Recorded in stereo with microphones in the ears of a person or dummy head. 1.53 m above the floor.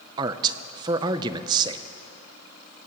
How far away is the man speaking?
About 0.5 m.